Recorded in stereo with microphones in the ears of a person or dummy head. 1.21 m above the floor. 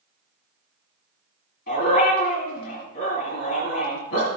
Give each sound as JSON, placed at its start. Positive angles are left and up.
{"t": 1.7, "sound": "a dog barking", "side_deg": 50, "distance_m": 4.5}